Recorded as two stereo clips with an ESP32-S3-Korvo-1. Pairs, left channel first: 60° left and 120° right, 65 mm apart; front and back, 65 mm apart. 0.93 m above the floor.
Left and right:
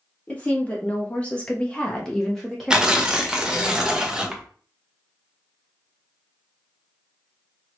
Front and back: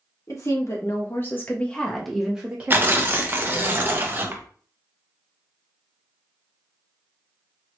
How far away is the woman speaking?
About 1.2 m.